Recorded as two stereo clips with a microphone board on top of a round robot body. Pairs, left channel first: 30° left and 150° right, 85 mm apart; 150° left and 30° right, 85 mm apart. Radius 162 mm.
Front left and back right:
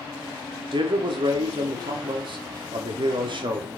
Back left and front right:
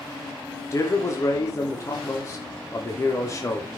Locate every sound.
0.7 s a man speaking: 160° right, 2.5 m